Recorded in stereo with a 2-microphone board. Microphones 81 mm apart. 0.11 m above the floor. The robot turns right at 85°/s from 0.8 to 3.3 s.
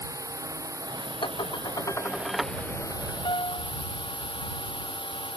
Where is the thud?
I don't hear a thud.